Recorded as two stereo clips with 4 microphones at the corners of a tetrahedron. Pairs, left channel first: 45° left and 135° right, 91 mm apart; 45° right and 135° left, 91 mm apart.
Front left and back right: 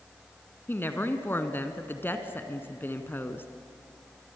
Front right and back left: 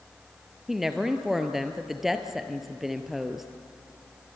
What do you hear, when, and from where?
0.7 s a woman speaking: 50° left, 1.6 m